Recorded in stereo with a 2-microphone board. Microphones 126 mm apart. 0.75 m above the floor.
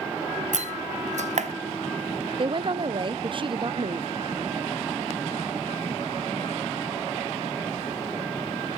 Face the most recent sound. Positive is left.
turn(degrees=-40)  # may be behind; listen again after turning